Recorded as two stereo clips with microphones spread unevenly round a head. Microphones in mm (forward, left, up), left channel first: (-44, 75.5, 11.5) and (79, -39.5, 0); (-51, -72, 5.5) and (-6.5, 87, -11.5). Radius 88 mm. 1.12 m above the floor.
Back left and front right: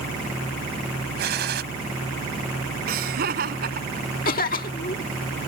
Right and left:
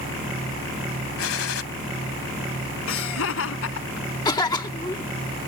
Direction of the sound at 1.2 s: 85° right.